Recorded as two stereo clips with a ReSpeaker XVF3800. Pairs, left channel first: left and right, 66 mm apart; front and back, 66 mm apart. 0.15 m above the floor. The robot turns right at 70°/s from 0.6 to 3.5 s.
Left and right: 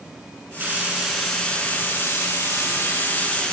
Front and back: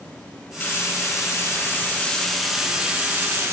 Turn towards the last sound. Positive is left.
turn(degrees=160)